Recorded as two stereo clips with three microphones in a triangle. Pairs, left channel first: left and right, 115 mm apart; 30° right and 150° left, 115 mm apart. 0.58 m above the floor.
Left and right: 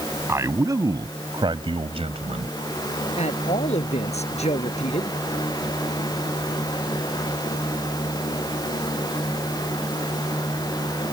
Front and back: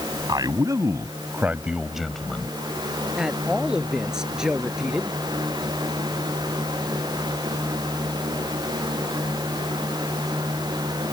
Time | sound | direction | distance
0.3 | a man speaking | 155° right | ?
3.2 | a man speaking | 65° left | ?